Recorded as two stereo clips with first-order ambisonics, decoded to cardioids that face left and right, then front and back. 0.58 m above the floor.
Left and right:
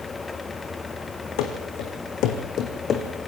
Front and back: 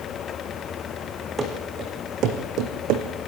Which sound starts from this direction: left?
Running footsteps, at 1.4 s.